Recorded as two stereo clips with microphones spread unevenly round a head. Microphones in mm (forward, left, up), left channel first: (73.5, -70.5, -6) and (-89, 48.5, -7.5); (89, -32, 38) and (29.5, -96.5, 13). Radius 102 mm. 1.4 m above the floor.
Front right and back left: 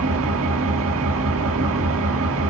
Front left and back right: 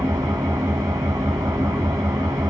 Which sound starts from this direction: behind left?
An engine running, at 0.0 s.